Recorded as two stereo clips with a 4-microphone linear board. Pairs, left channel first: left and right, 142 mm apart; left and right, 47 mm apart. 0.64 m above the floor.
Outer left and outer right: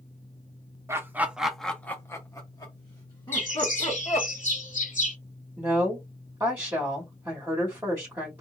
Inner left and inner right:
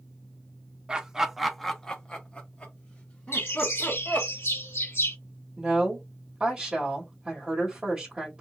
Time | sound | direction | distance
0.9 | laughter | 20° right (ahead or behind) | 0.6 m
3.3 | a bird | 65° left (ahead or behind) | 1.0 m
5.6 | a woman speaking | 20° right (ahead or behind) | 1.7 m